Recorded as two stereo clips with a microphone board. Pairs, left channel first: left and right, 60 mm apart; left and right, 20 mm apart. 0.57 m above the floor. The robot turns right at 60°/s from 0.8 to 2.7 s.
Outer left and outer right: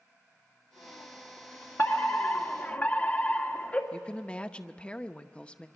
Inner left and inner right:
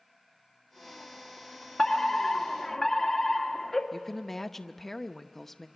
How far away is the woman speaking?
About 0.7 m.